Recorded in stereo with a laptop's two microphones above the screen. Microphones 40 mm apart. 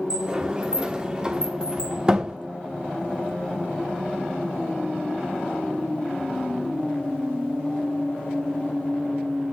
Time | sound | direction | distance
0.1 | a sliding door | 20° right (ahead or behind) | 0.9 m